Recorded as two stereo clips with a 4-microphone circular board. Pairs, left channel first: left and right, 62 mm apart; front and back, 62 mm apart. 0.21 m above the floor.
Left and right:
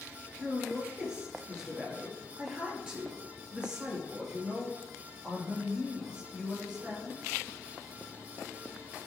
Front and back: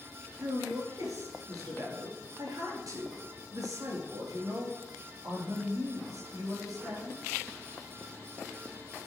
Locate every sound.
0.4 s a man speaking: 165° right, 4 m